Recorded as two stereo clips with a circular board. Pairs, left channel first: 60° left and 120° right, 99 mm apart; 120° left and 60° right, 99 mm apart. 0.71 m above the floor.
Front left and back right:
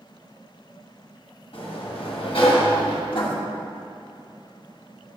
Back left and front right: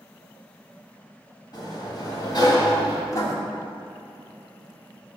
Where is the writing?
70° left, 1.6 m.